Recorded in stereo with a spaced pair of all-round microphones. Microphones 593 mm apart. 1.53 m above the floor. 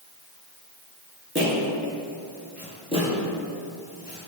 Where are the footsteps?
20° right (ahead or behind), 1.5 m; by 4.3 s 25° left (ahead or behind), 2.0 m.